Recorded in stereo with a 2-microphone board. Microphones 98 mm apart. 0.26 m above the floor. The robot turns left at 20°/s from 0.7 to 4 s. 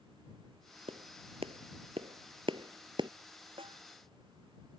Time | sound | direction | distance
0.9 | a clap | 75° right (ahead or behind) | ?
3.6 | a snare drum | 65° right (ahead or behind) | ?